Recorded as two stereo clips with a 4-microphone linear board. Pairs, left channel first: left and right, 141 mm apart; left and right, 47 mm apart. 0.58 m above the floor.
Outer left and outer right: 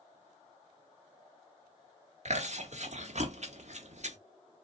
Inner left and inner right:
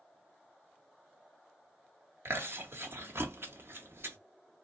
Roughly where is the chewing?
Right.